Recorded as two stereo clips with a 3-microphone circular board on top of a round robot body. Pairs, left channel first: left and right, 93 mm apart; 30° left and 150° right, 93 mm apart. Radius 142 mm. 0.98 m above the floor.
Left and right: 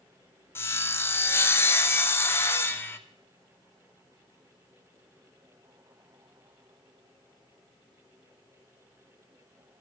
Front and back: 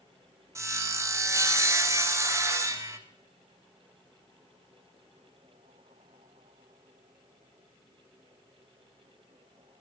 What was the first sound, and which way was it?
Sawing, 155° left.